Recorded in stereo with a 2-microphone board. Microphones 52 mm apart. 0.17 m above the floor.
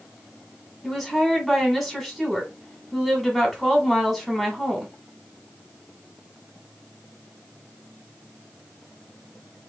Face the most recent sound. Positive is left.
turn(degrees=0)  # may be behind; listen again after turning